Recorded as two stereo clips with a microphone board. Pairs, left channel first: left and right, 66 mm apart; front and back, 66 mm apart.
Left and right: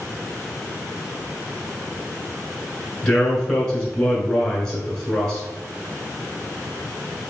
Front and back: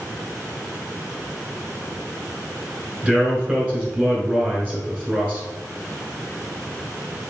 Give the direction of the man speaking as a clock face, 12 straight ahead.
7 o'clock.